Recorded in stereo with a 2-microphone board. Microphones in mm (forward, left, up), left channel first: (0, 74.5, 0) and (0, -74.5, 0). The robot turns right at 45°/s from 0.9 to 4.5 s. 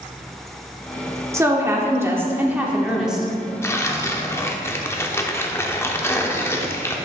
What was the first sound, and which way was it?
A woman speaking, 20° right (ahead or behind).